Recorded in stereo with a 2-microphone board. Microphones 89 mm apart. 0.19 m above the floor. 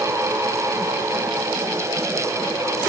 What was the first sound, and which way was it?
Only background noise.